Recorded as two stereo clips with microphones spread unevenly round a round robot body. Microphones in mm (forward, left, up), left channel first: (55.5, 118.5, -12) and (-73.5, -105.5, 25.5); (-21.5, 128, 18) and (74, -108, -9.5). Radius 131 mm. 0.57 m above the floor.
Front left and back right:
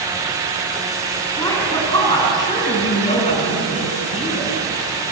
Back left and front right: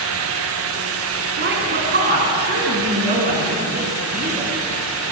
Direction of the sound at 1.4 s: 20° right.